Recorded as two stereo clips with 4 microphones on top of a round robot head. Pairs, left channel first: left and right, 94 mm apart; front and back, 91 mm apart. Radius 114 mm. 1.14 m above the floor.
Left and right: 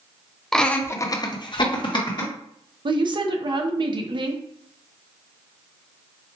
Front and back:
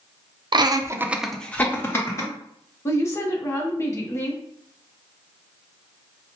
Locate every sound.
0.5 s laughter: 175° left, 0.7 m; by 2.3 s 55° left, 1.3 m
2.9 s a woman speaking: 55° right, 0.7 m